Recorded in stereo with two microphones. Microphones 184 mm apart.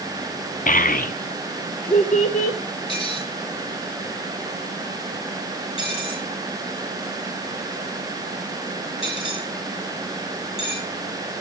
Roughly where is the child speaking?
Left.